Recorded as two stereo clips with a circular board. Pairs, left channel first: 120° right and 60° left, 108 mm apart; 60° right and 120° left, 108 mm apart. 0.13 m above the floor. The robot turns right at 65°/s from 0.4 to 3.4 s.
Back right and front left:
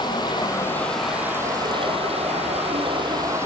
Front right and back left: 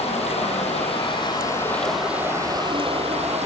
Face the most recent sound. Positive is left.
turn(degrees=125)